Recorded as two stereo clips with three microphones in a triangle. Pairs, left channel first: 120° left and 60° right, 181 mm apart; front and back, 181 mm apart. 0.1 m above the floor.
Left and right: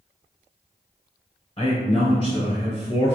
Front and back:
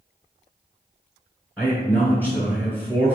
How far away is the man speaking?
About 1.2 m.